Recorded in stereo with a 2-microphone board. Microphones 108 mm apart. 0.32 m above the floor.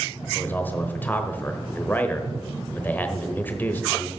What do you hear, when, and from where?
0.3 s a man speaking: 15° left (ahead or behind), 1.1 m